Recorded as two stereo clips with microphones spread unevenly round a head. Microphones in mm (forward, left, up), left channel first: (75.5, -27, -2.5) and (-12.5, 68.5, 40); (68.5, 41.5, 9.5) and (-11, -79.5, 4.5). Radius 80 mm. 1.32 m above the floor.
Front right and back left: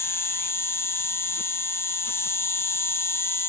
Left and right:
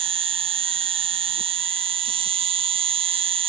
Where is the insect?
90° right.